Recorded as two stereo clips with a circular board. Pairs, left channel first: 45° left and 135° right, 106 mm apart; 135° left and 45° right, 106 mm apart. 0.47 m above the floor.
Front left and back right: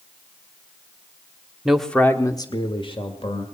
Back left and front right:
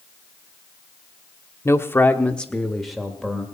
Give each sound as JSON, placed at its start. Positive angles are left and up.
{"t": 1.6, "sound": "a man speaking", "azimuth_deg": 150, "distance_m": 1.0}